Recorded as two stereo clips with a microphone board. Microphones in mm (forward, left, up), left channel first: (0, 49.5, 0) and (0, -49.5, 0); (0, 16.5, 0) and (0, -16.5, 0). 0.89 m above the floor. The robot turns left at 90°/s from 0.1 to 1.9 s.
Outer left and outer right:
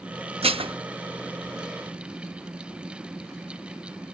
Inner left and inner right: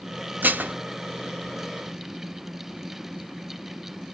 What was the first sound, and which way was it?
Dishes clattering, 90° right.